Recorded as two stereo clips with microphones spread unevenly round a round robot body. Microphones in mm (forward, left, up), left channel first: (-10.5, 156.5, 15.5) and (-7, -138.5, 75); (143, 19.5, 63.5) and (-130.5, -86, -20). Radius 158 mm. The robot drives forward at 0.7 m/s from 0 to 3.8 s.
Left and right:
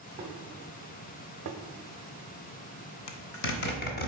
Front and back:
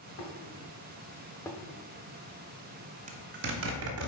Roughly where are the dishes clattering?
Ahead right.